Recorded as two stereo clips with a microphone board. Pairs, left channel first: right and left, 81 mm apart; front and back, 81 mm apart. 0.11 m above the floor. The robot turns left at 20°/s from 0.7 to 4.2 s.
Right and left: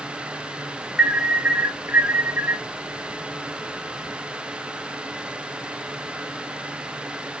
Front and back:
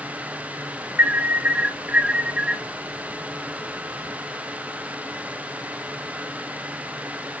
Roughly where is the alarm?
Behind left.